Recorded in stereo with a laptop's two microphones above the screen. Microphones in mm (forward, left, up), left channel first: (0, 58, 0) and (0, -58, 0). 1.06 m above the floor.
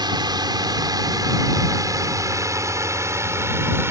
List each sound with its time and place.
0.0 s a drone: 40° right (ahead or behind); by 3.9 s 20° right (ahead or behind)